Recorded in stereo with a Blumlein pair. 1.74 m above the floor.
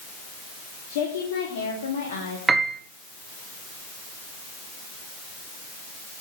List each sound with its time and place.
0.9 s a woman speaking: 50° left, 3.5 m; by 2.4 s 65° left, 3.5 m
2.5 s a piano: 15° right, 1.9 m